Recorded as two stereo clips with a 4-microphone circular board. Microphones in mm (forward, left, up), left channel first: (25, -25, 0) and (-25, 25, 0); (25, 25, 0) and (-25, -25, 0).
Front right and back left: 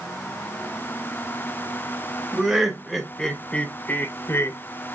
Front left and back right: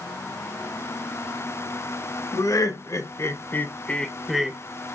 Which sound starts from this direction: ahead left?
Laughter, at 2.3 s.